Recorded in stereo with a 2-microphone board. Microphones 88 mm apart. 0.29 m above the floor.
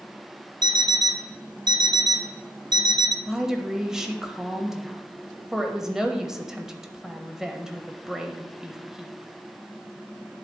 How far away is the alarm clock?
About 0.8 m.